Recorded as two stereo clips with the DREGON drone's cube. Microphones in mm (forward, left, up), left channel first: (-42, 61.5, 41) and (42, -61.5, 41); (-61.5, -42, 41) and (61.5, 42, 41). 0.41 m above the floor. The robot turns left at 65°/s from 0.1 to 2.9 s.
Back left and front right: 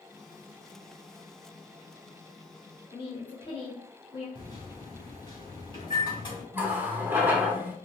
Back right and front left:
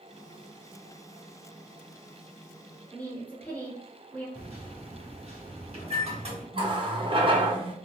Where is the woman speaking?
140° left, 1.3 m.